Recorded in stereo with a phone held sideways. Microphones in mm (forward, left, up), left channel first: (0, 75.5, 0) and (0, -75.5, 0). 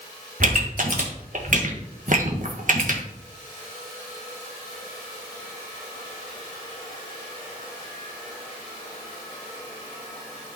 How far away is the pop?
About 1.6 m.